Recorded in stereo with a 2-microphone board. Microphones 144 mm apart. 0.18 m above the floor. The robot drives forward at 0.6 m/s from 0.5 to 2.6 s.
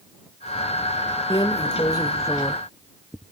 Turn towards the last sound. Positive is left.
turn(degrees=20)  # may be behind; listen again after turning